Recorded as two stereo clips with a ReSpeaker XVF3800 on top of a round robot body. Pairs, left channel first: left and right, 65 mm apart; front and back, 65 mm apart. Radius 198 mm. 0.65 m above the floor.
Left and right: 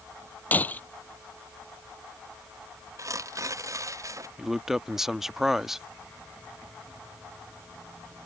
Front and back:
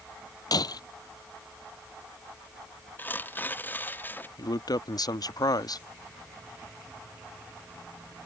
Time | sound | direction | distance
0.5 | breaking glass | 25° left | ?
3.0 | tearing paper | 60° right | ?
4.4 | a man speaking | 5° right | ?